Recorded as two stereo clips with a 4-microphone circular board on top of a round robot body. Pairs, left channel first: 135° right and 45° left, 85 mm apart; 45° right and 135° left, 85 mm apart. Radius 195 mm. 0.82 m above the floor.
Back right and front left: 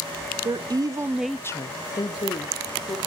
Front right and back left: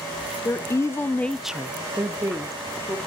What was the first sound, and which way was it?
A woman speaking, 10° left.